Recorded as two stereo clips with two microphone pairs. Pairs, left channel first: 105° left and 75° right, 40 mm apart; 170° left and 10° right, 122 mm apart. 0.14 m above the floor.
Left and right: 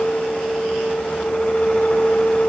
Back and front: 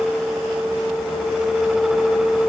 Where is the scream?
No scream in this recording.